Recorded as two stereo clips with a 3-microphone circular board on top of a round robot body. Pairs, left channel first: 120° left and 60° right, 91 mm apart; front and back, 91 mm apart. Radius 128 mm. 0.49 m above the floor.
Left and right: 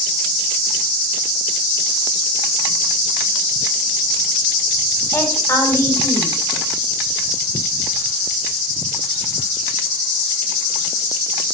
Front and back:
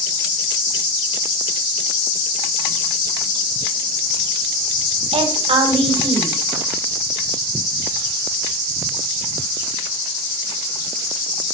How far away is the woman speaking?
About 4 m.